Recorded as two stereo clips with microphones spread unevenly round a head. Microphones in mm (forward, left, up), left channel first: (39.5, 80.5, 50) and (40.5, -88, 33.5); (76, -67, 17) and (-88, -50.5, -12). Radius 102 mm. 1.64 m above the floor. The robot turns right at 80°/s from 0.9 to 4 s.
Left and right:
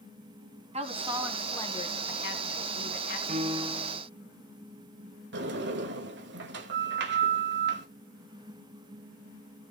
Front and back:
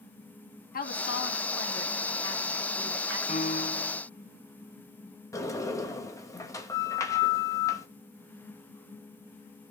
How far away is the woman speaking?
About 2.5 m.